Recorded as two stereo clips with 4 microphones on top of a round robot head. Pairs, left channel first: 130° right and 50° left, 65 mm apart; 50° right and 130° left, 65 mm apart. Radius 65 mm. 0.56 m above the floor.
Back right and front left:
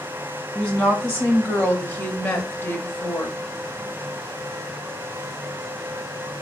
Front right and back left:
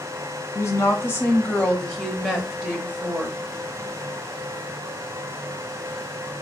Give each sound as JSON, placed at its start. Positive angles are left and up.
{"t": 0.6, "sound": "a woman speaking", "azimuth_deg": -45, "distance_m": 1.1}